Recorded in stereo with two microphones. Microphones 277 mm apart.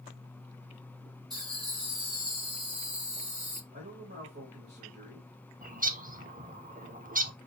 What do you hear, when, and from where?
1.3 s laughter: 15° right (ahead or behind), 3 m; by 3.6 s 25° right (ahead or behind), 2 m
3.7 s a man speaking: 40° right (ahead or behind), 2.5 m
5.6 s a bird: 30° right (ahead or behind), 0.5 m